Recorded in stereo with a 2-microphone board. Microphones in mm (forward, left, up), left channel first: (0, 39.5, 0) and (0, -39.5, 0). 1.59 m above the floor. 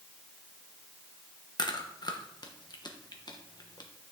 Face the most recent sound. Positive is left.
turn(degrees=60)  # may be behind; listen again after turning